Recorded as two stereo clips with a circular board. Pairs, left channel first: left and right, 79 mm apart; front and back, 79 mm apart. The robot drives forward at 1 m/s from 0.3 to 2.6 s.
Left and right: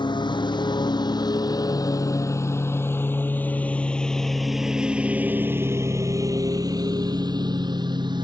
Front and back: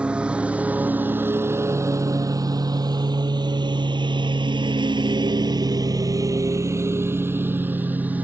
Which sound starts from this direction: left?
A lawn mower, at 0.0 s.